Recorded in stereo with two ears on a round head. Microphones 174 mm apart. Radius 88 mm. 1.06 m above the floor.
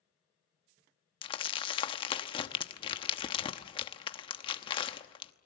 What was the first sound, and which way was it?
Crumpling, 25° left (ahead or behind).